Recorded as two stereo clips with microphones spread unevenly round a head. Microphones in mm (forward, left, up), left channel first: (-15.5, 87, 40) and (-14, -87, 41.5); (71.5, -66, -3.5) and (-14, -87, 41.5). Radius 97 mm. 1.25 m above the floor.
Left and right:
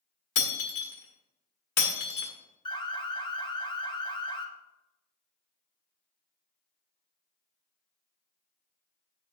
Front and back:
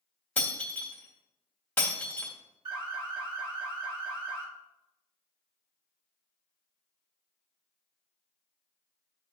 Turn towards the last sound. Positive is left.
turn(degrees=135)